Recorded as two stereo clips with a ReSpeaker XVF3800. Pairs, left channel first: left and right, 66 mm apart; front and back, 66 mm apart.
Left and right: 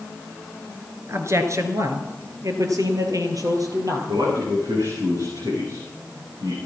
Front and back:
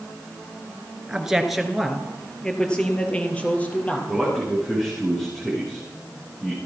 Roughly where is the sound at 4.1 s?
Right.